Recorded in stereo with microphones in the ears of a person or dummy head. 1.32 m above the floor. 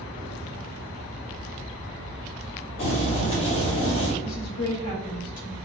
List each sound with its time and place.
2.8 s boiling: 30° left (ahead or behind), 1.0 m
4.2 s a woman speaking: 85° left, 0.7 m